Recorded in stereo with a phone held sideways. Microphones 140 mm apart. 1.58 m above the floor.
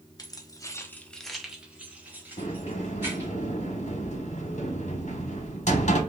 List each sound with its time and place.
0.2 s keys jangling: 30° left (ahead or behind), 0.7 m; by 3.3 s 15° right (ahead or behind), 2 m
2.4 s a sliding door: 55° left (ahead or behind), 0.8 m